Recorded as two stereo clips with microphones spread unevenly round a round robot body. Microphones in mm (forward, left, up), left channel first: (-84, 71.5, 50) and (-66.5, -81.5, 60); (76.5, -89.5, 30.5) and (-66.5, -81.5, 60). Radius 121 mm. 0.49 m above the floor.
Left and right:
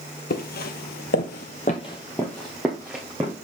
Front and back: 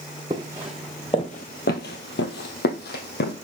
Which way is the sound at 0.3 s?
115° left.